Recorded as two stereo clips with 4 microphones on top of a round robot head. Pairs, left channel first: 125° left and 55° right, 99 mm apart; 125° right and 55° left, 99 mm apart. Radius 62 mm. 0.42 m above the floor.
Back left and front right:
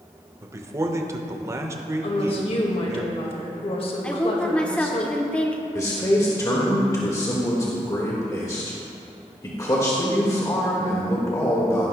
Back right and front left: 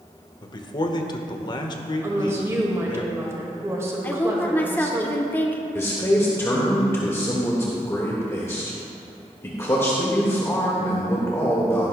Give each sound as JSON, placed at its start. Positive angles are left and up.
{"t": 0.4, "sound": "a man speaking", "azimuth_deg": -105, "distance_m": 1.1}
{"t": 2.0, "sound": "a woman speaking", "azimuth_deg": 115, "distance_m": 1.7}
{"t": 4.0, "sound": "a woman speaking", "azimuth_deg": -170, "distance_m": 0.9}
{"t": 5.8, "sound": "a man speaking", "azimuth_deg": 175, "distance_m": 1.5}